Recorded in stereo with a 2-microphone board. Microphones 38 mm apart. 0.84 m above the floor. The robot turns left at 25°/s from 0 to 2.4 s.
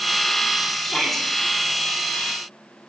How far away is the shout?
About 6.5 m.